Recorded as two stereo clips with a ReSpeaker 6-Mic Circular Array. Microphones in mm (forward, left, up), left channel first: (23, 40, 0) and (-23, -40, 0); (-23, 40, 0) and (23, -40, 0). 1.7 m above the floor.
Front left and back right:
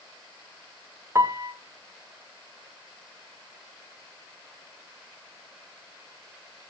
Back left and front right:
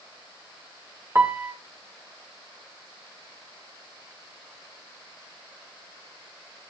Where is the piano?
95° right, 1.5 m.